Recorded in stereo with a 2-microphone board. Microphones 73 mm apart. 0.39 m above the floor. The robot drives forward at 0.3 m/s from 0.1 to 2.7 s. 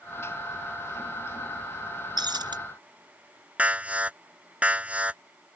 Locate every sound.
2.2 s breaking glass: 80° right
3.6 s an alarm: 20° right (ahead or behind)